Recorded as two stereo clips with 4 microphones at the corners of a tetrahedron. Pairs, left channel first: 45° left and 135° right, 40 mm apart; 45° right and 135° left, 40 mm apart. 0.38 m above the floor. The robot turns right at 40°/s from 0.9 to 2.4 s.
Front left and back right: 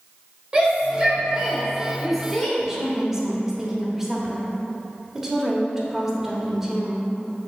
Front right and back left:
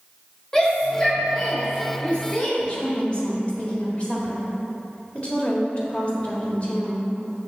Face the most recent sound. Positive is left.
turn(degrees=-65)